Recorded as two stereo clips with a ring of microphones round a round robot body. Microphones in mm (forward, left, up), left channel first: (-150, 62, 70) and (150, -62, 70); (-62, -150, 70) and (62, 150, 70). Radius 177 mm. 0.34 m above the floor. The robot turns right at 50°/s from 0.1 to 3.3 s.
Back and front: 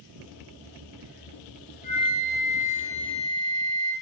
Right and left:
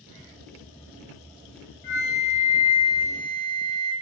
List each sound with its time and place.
1.8 s a flute: 135° right, 1.8 m; by 3.9 s 65° right, 1.8 m